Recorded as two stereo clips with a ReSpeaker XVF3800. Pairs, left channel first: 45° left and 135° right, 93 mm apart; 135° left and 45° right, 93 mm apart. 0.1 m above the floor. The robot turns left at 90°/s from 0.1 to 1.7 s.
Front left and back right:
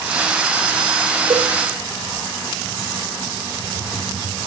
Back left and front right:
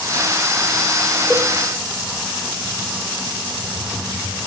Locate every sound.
1.3 s a cowbell: 135° right, 1.4 m; by 1.5 s 150° right, 1.4 m